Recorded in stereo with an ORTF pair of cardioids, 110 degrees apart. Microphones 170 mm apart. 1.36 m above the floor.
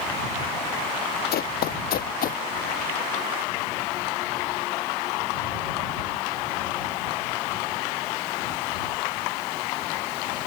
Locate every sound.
1.3 s running footsteps: 65° left; by 2.4 s 55° left